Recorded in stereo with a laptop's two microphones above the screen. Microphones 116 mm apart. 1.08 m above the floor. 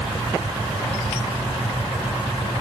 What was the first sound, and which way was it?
Only background noise.